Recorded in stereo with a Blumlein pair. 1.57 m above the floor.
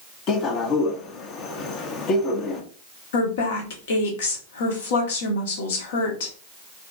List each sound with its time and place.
0.3 s a man speaking: 30° left, 0.8 m
3.1 s a woman speaking: 60° left, 1.1 m